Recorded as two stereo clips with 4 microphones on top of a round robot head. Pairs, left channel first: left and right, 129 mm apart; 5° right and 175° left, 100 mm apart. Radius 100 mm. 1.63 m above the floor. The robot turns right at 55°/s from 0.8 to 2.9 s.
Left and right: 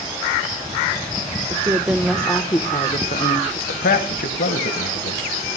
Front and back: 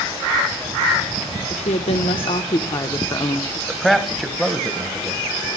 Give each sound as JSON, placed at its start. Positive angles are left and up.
{"t": 1.5, "sound": "a woman speaking", "azimuth_deg": -35, "distance_m": 0.8}
{"t": 3.7, "sound": "a man speaking", "azimuth_deg": 85, "distance_m": 1.6}